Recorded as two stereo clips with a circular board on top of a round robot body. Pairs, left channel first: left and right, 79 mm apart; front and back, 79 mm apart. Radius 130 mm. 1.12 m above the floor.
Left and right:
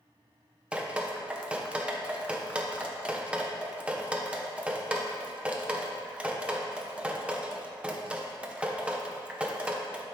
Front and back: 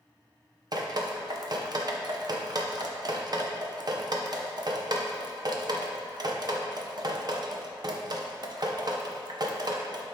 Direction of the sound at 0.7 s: 165° right.